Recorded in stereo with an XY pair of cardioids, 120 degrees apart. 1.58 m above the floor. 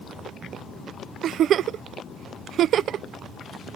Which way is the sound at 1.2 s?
55° right.